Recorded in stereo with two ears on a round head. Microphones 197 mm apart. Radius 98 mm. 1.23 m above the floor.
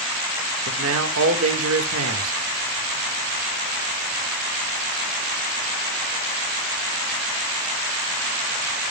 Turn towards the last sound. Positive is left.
turn(degrees=-75)  # may be behind; listen again after turning